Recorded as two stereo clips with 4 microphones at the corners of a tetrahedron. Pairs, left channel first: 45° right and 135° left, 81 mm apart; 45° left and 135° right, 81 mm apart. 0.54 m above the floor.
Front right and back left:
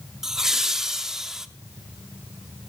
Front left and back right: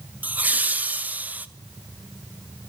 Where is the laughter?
155° right, 0.6 m.